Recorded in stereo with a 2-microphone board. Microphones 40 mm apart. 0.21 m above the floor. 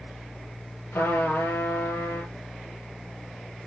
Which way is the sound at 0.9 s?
75° left (ahead or behind).